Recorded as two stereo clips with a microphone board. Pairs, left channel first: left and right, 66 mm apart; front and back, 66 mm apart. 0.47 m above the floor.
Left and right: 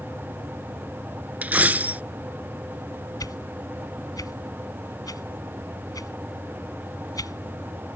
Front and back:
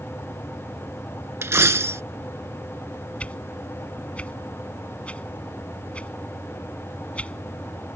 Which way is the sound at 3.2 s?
70° left.